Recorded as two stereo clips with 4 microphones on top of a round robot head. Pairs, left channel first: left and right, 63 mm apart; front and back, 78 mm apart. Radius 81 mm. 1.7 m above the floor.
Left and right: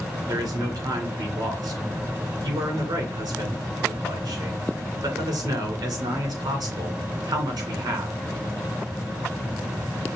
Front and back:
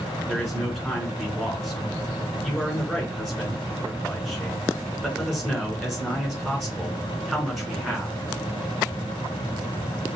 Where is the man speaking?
95° right, 3 m.